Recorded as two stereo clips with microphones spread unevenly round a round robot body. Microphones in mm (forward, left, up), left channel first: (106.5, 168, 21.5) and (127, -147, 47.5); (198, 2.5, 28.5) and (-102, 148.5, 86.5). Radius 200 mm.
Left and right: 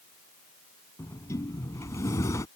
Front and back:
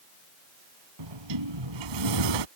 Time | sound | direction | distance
1.0 | a sliding door | straight behind | ?